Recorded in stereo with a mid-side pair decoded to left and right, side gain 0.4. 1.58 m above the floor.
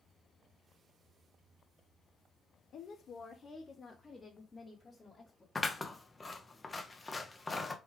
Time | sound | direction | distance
2.7 | a woman speaking | 70° left | 0.5 m
5.5 | scissors | 25° left | 0.7 m